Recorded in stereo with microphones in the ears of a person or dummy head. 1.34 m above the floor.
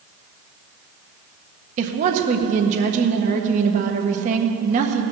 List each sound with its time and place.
1.8 s a woman speaking: 45° right (ahead or behind), 1.5 m